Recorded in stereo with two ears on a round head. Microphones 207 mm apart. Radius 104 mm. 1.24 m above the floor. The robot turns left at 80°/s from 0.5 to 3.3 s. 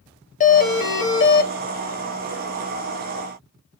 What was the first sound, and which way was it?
A doorbell, 135° left.